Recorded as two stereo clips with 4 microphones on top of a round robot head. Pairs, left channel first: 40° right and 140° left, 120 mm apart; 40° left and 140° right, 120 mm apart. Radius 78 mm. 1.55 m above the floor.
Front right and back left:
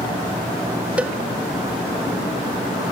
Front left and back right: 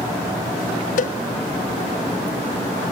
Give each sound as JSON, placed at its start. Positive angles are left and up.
{"t": 1.0, "sound": "a cowbell", "azimuth_deg": 60, "distance_m": 0.6}